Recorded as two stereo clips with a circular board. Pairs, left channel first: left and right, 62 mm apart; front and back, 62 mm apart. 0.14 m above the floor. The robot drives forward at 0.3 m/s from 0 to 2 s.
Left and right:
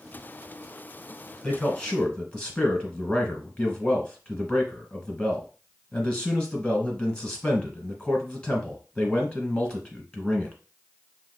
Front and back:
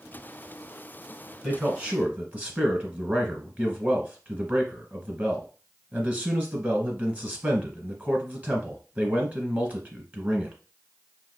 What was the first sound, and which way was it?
A man speaking, 140° left.